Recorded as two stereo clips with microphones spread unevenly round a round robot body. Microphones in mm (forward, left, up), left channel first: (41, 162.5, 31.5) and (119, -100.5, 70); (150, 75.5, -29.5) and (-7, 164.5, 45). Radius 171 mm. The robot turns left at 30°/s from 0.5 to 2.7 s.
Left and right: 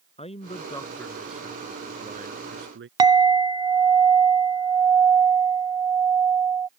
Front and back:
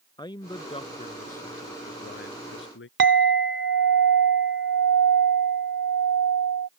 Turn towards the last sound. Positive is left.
turn(degrees=-150)